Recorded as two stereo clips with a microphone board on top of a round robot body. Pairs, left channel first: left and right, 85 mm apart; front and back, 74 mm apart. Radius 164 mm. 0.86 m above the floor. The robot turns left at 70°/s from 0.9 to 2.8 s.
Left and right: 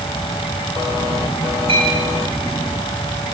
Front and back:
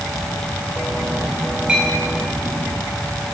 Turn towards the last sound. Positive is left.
turn(degrees=180)